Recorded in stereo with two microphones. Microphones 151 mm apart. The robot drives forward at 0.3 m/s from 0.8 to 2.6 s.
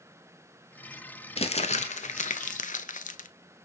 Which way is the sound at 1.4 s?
40° left (ahead or behind).